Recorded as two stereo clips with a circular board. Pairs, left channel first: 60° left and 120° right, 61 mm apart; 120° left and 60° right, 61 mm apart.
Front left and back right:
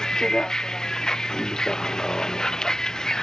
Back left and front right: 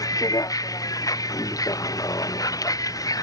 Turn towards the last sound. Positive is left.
turn(degrees=140)